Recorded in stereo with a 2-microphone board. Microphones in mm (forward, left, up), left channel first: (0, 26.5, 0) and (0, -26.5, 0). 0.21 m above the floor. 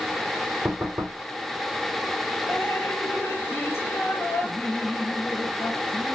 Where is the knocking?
20° right (ahead or behind), 6 m.